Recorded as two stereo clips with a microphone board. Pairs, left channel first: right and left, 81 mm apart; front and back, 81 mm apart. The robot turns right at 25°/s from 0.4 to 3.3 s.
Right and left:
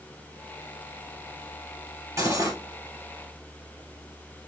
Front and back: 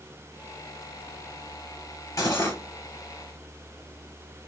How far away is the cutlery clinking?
About 2.5 m.